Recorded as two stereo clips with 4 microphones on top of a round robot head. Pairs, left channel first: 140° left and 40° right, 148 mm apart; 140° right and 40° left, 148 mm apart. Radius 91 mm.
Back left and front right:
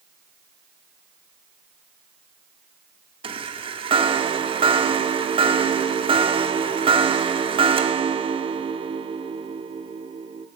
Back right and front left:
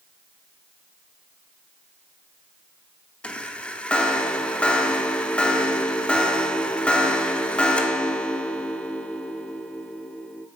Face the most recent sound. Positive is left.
turn(degrees=-60)